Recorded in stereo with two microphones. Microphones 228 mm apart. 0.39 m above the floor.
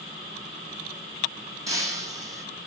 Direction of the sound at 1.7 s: 15° right (ahead or behind).